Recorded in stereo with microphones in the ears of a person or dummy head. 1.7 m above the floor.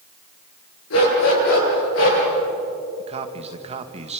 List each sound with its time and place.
0.9 s a dog barking: 80° left, 9.5 m; by 2.2 s 75° left (ahead or behind), 10.5 m
3.0 s a man speaking: 30° right (ahead or behind), 2.0 m